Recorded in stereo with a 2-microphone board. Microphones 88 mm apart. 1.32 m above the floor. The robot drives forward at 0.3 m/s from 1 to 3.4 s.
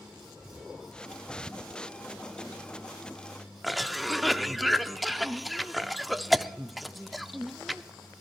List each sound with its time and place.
3.6 s a cough: centre (ahead or behind), 0.6 m